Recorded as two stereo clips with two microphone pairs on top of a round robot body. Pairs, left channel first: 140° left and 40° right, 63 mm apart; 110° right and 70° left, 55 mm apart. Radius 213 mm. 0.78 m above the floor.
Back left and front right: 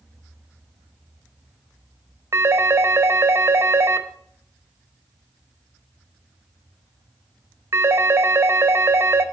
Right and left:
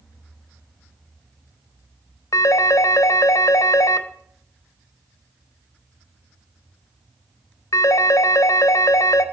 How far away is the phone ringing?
About 0.7 m.